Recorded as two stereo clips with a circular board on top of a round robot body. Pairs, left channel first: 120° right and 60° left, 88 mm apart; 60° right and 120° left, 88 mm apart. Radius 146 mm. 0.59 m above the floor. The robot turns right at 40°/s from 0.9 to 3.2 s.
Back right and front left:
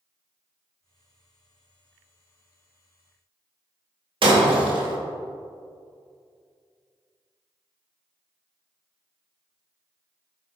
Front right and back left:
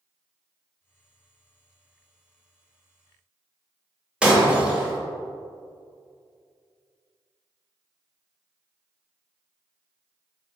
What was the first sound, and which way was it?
Breaking glass, 40° left.